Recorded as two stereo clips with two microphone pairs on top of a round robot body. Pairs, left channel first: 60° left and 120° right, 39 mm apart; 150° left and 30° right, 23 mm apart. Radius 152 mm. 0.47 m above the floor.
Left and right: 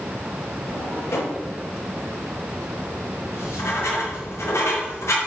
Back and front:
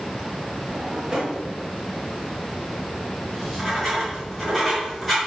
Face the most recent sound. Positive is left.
turn(degrees=55)